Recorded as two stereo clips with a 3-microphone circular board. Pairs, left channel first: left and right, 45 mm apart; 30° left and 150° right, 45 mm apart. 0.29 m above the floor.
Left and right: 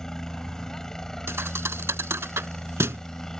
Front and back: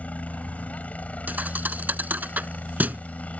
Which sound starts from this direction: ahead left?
A helicopter, at 0.0 s.